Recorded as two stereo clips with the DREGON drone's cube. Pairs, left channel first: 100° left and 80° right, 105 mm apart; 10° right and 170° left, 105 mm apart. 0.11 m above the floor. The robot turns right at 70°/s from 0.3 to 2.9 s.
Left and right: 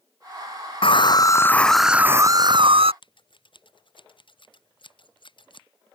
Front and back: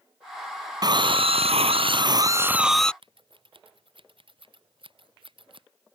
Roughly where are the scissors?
Behind left.